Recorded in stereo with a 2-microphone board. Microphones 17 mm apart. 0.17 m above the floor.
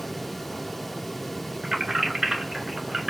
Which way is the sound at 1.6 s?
65° right (ahead or behind).